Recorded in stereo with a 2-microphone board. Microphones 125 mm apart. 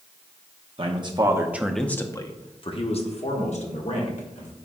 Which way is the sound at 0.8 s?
45° right (ahead or behind).